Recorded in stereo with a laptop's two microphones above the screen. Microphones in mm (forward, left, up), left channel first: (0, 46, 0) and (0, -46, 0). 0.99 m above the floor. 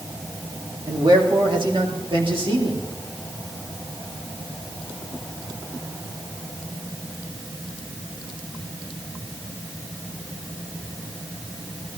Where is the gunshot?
No gunshot in this recording.